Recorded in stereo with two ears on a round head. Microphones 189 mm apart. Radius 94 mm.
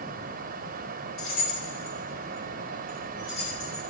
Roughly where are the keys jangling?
Left.